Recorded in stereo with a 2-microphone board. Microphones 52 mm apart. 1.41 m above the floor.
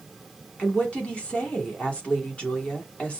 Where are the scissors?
No scissors in this recording.